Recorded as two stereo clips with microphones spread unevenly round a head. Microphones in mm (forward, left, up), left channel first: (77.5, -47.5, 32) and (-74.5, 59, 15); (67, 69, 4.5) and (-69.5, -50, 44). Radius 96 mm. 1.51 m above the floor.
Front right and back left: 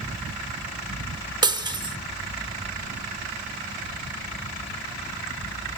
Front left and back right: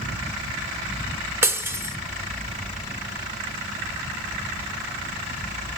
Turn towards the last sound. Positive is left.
turn(degrees=-160)